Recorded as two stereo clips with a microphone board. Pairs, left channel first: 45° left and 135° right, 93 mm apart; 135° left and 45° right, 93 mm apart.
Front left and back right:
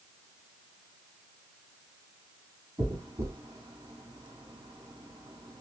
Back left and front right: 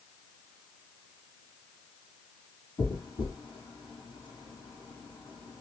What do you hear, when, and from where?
2.8 s a dropped coin: 175° left, 3.5 m